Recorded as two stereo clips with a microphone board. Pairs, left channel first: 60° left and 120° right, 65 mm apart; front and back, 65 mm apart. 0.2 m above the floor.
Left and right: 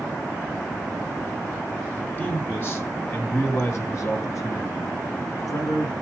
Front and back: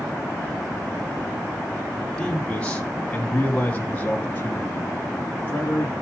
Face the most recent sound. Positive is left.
turn(degrees=55)